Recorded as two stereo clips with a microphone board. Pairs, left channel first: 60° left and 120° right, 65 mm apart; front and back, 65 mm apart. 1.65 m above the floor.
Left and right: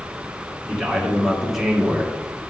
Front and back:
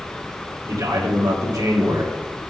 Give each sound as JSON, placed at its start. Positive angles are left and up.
{"t": 0.7, "sound": "a man speaking", "azimuth_deg": 150, "distance_m": 2.0}